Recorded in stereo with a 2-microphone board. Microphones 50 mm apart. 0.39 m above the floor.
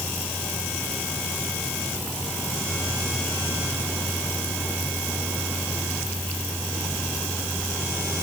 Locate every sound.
Only background noise.